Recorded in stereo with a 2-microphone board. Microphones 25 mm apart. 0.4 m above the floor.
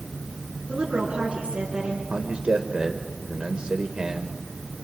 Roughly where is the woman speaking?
Right.